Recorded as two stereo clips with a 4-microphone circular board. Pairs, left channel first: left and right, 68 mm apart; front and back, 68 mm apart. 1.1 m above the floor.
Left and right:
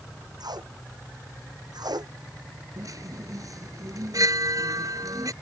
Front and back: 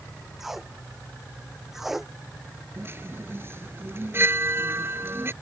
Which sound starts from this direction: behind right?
A chime, at 2.8 s.